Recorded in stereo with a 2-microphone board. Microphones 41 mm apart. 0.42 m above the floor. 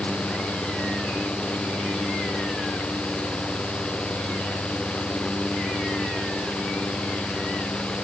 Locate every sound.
Only background noise.